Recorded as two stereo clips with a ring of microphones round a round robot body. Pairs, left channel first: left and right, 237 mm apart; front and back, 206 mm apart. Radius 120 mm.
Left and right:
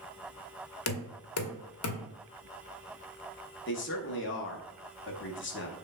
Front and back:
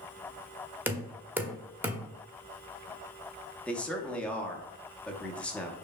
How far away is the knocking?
About 1.0 m.